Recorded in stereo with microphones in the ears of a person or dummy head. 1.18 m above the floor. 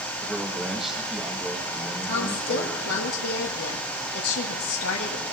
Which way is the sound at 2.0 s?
80° left.